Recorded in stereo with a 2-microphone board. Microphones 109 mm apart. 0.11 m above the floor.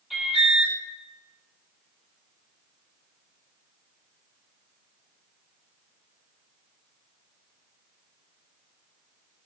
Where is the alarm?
5° right (ahead or behind), 4 m.